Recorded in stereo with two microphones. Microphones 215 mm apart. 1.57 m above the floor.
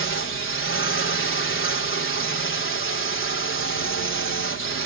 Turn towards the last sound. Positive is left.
turn(degrees=70)  # may be behind; listen again after turning